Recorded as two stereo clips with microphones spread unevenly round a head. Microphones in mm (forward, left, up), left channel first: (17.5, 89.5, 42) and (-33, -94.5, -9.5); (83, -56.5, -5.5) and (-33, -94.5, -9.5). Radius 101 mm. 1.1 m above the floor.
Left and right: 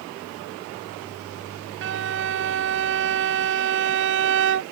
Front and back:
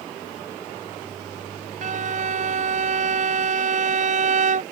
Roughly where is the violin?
Behind right.